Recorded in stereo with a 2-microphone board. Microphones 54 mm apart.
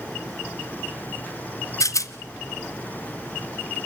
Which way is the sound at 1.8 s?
80° left.